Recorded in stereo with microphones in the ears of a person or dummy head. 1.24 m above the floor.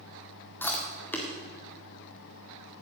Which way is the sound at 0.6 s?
5° left (ahead or behind).